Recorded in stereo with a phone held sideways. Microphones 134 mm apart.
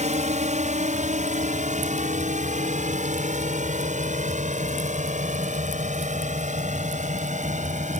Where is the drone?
60° right (ahead or behind); by 8.0 s 65° right (ahead or behind).